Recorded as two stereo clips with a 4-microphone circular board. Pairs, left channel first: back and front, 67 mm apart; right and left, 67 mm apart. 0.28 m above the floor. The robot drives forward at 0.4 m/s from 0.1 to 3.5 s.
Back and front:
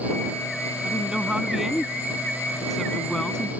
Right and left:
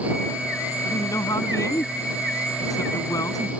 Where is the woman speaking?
75° right; by 3.5 s 100° right.